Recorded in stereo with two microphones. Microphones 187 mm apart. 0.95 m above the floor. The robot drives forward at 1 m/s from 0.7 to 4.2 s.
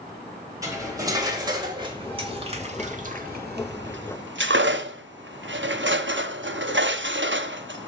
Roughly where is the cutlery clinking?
Centre.